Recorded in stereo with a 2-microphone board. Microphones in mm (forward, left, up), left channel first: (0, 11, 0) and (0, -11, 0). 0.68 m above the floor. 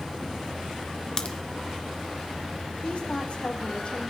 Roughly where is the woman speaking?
Left.